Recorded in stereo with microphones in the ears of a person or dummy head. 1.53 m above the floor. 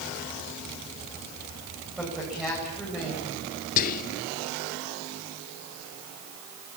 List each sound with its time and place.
2.0 s a woman speaking: 5° right (ahead or behind), 9 m
3.8 s whispering: 40° left (ahead or behind), 0.6 m